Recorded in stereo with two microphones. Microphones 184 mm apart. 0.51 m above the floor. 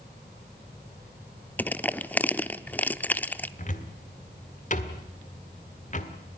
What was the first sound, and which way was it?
Crushing, 10° left (ahead or behind).